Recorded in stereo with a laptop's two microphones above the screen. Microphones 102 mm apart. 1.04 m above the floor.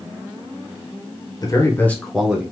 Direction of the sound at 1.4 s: 35° left (ahead or behind).